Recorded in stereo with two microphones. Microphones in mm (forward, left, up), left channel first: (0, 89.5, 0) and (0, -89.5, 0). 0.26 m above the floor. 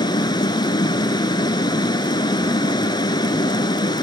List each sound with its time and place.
0.0 s running water: 25° left (ahead or behind), 1.1 m